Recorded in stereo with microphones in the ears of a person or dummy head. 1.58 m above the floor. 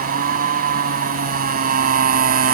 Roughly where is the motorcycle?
Right.